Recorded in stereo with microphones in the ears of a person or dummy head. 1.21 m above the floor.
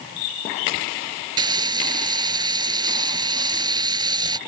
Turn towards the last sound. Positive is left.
turn(degrees=-25)  # may be behind; listen again after turning